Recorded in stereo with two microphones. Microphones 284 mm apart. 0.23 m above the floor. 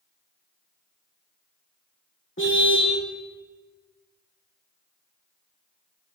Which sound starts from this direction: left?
A car horn, at 2.4 s.